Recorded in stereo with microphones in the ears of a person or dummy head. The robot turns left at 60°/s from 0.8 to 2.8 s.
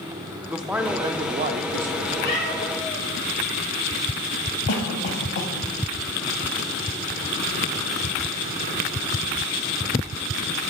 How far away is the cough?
About 1.2 m.